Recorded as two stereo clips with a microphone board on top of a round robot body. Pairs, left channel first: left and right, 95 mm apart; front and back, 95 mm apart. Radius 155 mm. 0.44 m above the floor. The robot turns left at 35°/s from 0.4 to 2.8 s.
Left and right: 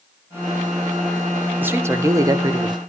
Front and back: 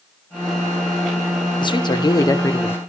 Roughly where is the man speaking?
Ahead right.